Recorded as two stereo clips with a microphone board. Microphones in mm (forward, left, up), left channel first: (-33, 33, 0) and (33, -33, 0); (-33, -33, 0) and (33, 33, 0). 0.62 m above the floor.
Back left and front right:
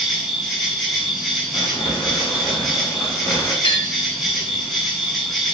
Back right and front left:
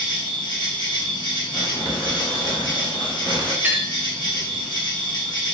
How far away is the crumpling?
About 1.5 m.